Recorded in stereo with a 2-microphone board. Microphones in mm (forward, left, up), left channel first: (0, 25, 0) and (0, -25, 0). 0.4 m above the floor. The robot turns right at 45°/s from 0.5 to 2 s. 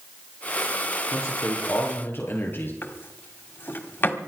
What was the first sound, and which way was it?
A man speaking, 95° left.